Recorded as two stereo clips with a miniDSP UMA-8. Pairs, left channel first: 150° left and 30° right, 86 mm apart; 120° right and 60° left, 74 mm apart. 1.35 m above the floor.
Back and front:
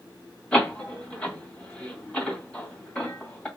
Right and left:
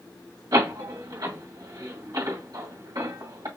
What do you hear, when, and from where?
0.5 s a door slam: 70° left, 2 m